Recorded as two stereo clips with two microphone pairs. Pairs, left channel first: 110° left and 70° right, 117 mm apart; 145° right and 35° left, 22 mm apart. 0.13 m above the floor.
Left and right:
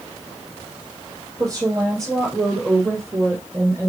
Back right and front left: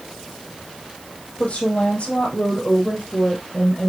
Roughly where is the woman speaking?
Behind right.